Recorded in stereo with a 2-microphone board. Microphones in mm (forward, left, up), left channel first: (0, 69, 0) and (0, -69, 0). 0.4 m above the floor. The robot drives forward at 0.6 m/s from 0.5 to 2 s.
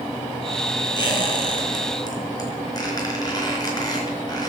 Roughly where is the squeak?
Left.